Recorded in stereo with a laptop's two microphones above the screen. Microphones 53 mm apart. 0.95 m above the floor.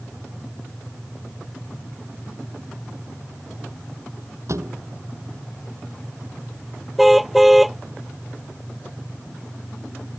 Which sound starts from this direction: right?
A thud, at 4.5 s.